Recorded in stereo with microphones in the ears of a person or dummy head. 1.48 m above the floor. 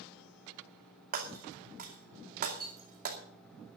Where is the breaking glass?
50° right (ahead or behind), 2.5 m.